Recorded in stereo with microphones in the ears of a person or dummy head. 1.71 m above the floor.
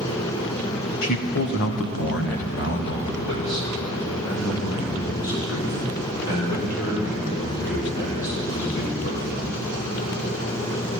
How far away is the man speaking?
About 0.6 m.